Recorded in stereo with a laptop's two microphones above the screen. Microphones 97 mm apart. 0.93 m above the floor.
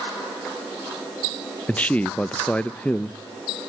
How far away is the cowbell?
I don't hear a cowbell.